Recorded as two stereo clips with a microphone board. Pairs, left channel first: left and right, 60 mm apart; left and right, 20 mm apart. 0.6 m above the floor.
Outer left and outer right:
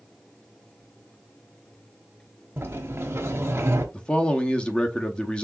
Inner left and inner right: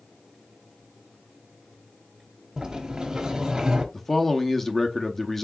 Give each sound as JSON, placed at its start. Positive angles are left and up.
{"t": 2.6, "sound": "a sliding door", "side_deg": -45, "distance_m": 1.1}
{"t": 3.9, "sound": "a man speaking", "side_deg": 15, "distance_m": 0.7}